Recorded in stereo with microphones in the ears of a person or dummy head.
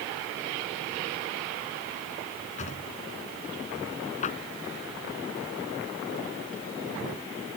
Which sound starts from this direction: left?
A drawer, at 2.6 s.